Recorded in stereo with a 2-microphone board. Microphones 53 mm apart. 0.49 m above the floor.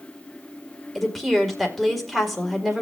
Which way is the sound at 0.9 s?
Centre (ahead or behind).